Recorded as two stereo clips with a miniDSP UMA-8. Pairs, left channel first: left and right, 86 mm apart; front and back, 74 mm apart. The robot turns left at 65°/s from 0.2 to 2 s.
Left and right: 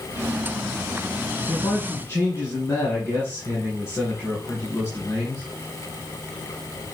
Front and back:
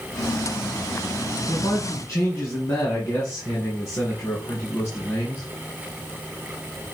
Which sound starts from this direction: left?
A man speaking, at 1.5 s.